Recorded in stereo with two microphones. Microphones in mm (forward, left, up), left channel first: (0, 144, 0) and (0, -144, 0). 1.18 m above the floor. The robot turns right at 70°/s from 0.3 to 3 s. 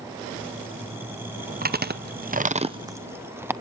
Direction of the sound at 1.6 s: 30° right (ahead or behind).